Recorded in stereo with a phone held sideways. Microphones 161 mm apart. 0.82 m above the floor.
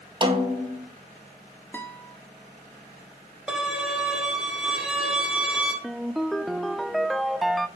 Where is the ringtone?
Centre (ahead or behind), 0.8 m.